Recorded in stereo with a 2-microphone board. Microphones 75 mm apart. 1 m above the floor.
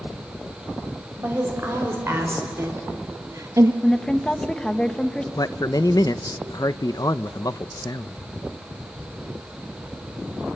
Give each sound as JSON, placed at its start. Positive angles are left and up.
{"t": 1.2, "sound": "a woman speaking", "side_deg": -35, "distance_m": 4.5}
{"t": 3.8, "sound": "a woman speaking", "side_deg": 10, "distance_m": 1.1}
{"t": 5.4, "sound": "a man speaking", "side_deg": 55, "distance_m": 0.5}